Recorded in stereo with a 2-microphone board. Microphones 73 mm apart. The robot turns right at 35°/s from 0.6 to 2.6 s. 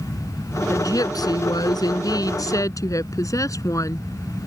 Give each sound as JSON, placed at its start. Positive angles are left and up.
{"t": 0.7, "sound": "a woman speaking", "azimuth_deg": 55}